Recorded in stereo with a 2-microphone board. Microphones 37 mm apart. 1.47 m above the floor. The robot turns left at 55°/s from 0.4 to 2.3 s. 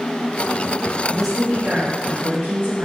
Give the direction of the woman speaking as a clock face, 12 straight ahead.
12 o'clock.